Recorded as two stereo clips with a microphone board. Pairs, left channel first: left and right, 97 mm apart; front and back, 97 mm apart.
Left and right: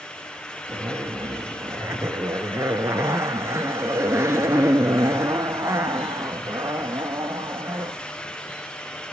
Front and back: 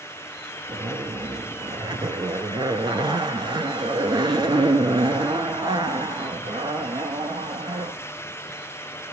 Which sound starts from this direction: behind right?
A zipper, at 0.7 s.